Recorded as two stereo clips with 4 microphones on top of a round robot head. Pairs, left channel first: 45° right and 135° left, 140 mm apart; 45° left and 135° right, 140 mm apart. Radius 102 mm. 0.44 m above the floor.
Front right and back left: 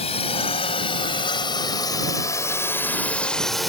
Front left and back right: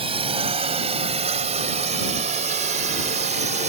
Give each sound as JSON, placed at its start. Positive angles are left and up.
{"t": 0.0, "sound": "a drone", "azimuth_deg": -90}